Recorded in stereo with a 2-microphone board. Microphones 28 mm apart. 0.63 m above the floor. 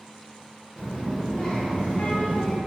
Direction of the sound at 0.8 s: 35° right (ahead or behind).